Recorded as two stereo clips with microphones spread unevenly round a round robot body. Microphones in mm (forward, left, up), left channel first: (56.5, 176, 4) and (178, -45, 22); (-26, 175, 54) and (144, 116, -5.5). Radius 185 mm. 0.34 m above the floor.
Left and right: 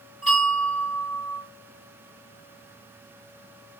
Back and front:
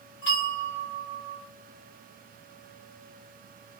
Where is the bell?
Straight behind, 1.4 m.